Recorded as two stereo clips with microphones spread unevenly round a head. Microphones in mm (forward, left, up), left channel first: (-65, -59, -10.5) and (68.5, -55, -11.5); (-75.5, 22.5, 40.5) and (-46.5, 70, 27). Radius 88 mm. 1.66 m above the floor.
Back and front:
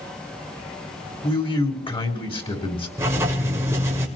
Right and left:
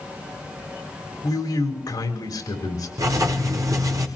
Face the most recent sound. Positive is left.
turn(degrees=70)